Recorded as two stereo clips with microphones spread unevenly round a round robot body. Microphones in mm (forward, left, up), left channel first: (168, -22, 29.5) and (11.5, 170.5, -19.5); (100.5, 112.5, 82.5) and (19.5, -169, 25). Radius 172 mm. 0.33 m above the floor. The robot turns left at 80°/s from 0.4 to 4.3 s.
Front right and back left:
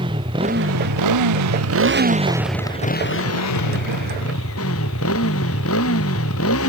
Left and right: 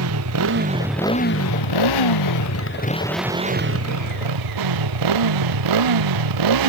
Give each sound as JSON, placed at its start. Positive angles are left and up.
{"t": 0.0, "sound": "a motorcycle", "azimuth_deg": -155}